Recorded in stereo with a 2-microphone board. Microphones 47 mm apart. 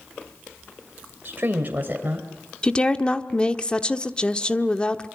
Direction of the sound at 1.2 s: 45° right (ahead or behind).